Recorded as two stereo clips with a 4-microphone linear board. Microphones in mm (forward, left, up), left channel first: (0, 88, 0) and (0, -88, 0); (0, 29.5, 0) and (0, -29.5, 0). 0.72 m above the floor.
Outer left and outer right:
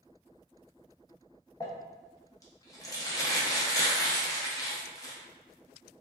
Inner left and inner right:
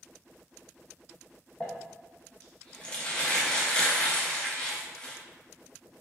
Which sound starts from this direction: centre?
Crumpling, at 1.6 s.